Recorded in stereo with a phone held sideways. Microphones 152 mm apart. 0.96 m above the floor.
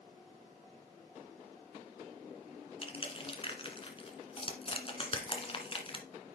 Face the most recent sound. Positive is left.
turn(degrees=35)  # may be behind; listen again after turning